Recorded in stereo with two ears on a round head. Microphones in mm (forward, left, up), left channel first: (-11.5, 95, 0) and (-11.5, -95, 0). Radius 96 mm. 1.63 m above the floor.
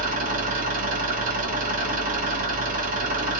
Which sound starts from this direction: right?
An engine running, at 0.0 s.